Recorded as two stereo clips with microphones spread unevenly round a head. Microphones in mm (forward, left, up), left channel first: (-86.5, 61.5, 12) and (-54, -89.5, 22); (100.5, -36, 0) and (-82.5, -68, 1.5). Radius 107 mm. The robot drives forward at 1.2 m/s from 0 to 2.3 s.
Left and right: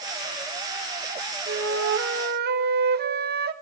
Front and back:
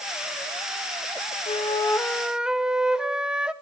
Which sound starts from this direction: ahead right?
A flute, at 1.5 s.